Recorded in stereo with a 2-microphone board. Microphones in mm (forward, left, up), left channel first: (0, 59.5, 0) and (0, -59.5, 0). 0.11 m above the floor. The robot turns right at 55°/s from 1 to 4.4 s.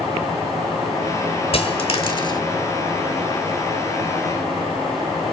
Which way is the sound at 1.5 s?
55° left (ahead or behind).